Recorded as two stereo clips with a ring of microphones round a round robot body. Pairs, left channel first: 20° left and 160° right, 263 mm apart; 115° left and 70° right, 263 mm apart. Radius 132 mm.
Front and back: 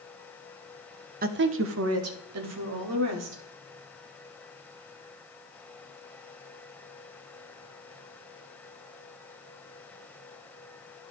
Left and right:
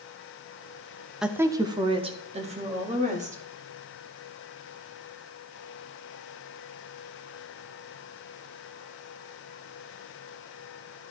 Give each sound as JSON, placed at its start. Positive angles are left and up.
{"t": 1.2, "sound": "a woman speaking", "azimuth_deg": -155, "distance_m": 0.7}